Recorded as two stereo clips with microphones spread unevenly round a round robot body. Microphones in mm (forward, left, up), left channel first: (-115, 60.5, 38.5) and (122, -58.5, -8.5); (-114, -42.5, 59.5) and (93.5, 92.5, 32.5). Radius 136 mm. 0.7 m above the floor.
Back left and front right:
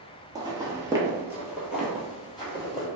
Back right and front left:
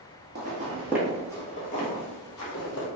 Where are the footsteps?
55° left, 0.7 m; by 2.9 s 125° right, 1.3 m.